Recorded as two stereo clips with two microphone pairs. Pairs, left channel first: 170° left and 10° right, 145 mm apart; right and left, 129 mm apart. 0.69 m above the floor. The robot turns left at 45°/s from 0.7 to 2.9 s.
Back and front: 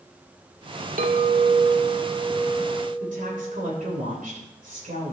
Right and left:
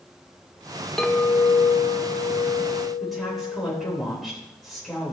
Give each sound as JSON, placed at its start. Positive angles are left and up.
{"t": 1.0, "sound": "a clink", "azimuth_deg": -5, "distance_m": 1.1}
{"t": 3.0, "sound": "a woman speaking", "azimuth_deg": 0, "distance_m": 3.5}